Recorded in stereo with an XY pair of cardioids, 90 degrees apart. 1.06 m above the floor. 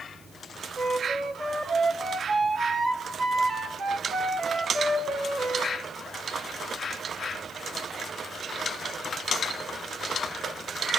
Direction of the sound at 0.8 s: 60° right.